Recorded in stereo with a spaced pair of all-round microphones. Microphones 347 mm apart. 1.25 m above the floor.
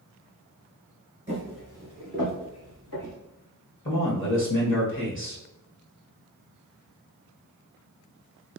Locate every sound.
1.3 s footsteps: 20° right (ahead or behind), 1.2 m; by 3.1 s 60° left (ahead or behind), 2.5 m
3.9 s a man speaking: 35° left (ahead or behind), 1.2 m